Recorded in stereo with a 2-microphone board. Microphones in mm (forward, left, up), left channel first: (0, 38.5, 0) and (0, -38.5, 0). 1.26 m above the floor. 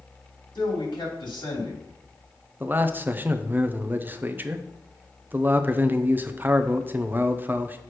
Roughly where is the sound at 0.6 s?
Left.